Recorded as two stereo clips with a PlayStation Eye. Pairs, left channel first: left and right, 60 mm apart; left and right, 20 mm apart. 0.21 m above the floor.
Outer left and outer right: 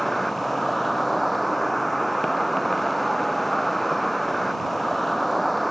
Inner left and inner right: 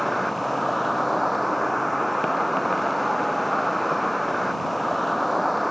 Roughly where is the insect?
Centre.